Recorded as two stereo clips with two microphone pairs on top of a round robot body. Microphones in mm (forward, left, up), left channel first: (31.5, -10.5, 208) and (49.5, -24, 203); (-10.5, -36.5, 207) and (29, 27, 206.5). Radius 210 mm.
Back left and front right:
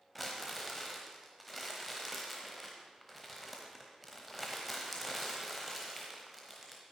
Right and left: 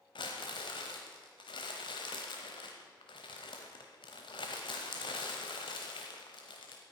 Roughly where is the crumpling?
Behind right.